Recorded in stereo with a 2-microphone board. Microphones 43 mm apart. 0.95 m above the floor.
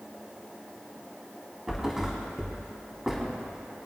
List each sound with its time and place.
1.7 s a thud: 10° right (ahead or behind), 2.5 m